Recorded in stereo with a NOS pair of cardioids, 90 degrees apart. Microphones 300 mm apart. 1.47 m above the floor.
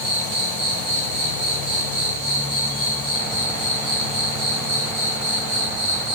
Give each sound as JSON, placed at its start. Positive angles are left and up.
{"t": 0.0, "sound": "an insect", "azimuth_deg": -60, "distance_m": 5.5}